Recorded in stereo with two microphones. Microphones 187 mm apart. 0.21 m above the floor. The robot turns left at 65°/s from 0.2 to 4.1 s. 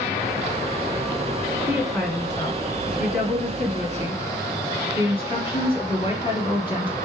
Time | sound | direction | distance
1.7 | a woman speaking | 165° right | 1.6 m